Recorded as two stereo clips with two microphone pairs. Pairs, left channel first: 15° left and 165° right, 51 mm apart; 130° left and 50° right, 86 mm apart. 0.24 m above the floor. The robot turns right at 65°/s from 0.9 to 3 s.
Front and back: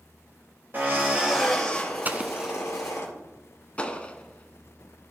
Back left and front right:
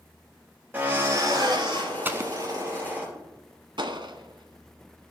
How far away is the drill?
About 4 m.